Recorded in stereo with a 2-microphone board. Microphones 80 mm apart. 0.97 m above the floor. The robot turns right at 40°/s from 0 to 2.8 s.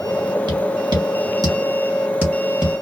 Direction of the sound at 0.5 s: 70° right (ahead or behind).